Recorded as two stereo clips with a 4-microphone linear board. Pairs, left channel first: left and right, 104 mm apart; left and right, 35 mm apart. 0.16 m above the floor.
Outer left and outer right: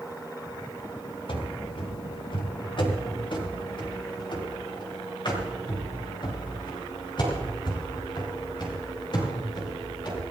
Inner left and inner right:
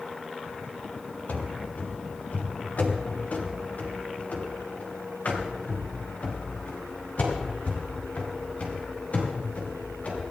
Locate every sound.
1.3 s running footsteps: 60° left (ahead or behind), 2.5 m; by 10.2 s 50° left (ahead or behind), 7 m